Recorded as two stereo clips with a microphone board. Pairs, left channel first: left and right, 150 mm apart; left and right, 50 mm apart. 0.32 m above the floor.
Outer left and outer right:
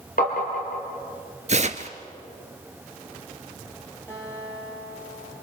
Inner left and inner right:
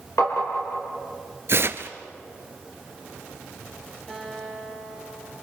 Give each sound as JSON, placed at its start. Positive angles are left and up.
{"t": 0.2, "sound": "tapping", "side_deg": 70, "distance_m": 4.5}
{"t": 1.5, "sound": "tearing paper", "side_deg": -50, "distance_m": 1.0}
{"t": 4.1, "sound": "a guitar", "side_deg": 15, "distance_m": 6.5}